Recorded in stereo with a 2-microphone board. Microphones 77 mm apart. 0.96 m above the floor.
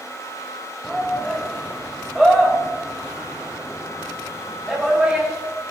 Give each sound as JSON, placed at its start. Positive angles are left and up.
{"t": 0.8, "sound": "a shout", "side_deg": 0, "distance_m": 5.0}